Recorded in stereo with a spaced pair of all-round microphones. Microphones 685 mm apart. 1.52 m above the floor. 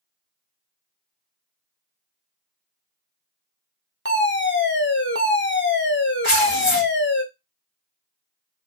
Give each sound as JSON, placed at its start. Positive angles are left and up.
{"t": 4.0, "sound": "a fire alarm", "side_deg": 20, "distance_m": 0.7}
{"t": 6.2, "sound": "tearing paper", "side_deg": 45, "distance_m": 1.1}